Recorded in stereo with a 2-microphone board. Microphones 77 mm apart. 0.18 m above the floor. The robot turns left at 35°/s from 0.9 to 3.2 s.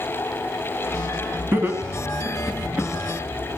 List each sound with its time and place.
1.5 s laughter: 25° right (ahead or behind), 1.1 m; by 2.9 s 20° right (ahead or behind), 1.1 m